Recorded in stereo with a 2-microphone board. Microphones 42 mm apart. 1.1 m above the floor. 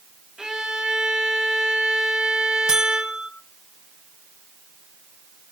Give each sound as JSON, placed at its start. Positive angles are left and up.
{"t": 0.4, "sound": "a violin", "side_deg": -15, "distance_m": 2.0}
{"t": 2.7, "sound": "a buzzer", "side_deg": -20, "distance_m": 3.5}